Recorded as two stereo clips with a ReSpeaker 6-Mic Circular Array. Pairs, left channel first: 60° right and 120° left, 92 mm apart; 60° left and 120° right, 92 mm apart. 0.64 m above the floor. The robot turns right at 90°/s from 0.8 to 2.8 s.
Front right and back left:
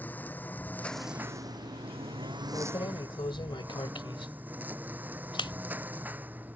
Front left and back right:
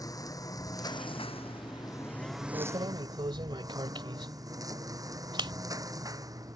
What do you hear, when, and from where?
0.0 s a lawn mower: 10° left; by 6.6 s 170° right
2.5 s keys jangling: 110° right; by 5.5 s 90° right